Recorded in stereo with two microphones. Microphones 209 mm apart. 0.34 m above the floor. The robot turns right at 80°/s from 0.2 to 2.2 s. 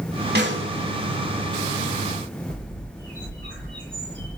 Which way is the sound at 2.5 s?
65° right (ahead or behind).